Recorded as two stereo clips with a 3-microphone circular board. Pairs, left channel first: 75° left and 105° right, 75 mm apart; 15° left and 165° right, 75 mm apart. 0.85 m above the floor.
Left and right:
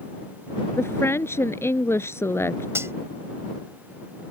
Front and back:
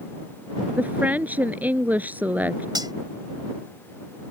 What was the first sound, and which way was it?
A woman speaking, 130° left.